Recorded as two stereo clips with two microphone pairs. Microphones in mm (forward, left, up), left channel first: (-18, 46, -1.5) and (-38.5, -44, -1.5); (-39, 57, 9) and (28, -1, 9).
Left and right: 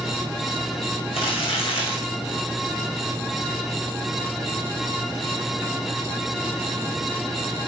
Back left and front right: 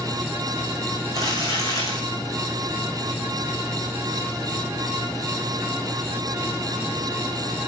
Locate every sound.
1.1 s crumpling: 90° left, 5 m